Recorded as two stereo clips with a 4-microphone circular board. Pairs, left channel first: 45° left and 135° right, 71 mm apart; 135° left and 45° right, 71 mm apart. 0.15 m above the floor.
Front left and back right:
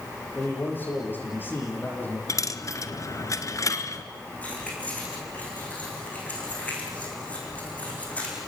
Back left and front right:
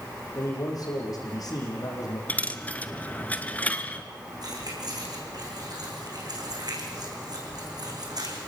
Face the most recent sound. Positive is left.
turn(degrees=-25)